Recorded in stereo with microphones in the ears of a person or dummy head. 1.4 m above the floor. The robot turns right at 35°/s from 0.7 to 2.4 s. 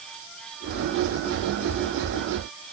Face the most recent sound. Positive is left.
No sound to turn to.